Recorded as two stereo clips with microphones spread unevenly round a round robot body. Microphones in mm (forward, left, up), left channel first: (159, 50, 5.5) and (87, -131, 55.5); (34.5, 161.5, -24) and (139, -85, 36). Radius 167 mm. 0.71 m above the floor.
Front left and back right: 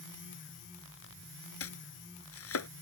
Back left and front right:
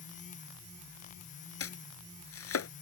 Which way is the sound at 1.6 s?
75° left.